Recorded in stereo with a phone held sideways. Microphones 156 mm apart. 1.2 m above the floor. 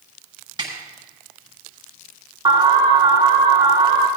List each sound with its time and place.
0.6 s a snare drum: 30° right (ahead or behind), 6 m
2.5 s an alarm: 30° right (ahead or behind), 2.5 m